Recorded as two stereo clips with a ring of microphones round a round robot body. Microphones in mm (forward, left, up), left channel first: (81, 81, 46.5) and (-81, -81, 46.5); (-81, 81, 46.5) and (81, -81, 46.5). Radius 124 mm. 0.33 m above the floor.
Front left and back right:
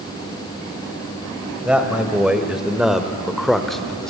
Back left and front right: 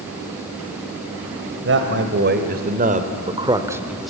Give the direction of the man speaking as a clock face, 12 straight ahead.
2 o'clock.